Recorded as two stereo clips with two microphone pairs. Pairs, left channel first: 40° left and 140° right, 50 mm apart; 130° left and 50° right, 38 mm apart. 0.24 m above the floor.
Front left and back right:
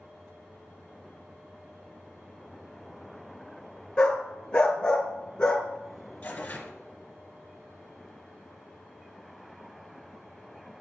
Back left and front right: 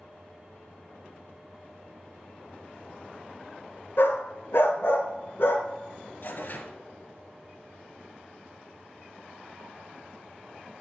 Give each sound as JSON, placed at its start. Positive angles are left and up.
{"t": 4.0, "sound": "a dog barking", "azimuth_deg": 110, "distance_m": 1.1}
{"t": 6.2, "sound": "tearing paper", "azimuth_deg": 100, "distance_m": 1.2}